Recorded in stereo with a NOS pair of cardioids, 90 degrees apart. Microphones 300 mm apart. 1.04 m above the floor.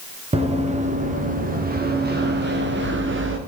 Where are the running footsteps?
20° right, 7.5 m; by 3.4 s 40° right, 8 m.